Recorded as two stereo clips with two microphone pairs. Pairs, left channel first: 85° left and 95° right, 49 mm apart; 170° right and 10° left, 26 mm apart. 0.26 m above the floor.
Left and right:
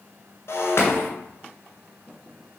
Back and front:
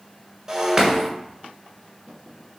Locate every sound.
0.5 s breaking glass: 65° left, 2.0 m